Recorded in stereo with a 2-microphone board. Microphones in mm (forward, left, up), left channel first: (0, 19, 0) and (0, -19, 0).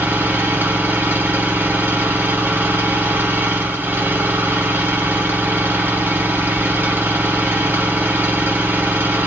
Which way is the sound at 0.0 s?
65° right (ahead or behind).